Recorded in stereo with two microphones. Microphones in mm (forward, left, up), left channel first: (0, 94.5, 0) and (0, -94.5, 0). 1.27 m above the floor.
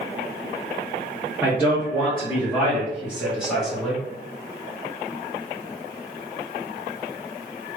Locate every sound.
1.4 s a man speaking: 10° right (ahead or behind), 1.5 m; by 4.0 s 5° left (ahead or behind), 2.5 m